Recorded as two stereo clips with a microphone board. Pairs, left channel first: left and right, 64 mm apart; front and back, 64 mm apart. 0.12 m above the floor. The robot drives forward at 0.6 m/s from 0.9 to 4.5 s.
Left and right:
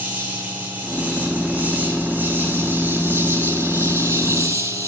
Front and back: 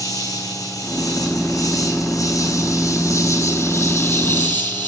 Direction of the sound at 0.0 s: 25° right.